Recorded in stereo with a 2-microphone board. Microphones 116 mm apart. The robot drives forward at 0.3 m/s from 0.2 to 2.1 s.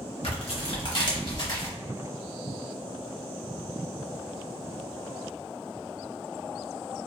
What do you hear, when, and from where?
0.2 s tearing paper: 60° left (ahead or behind), 0.9 m; by 1.7 s 40° left (ahead or behind), 1.2 m